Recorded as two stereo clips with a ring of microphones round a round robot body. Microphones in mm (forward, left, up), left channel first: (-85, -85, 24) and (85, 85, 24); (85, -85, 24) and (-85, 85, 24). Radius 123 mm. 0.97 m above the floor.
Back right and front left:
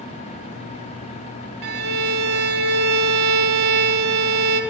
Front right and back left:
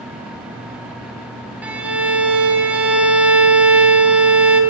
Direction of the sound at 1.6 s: 55° left.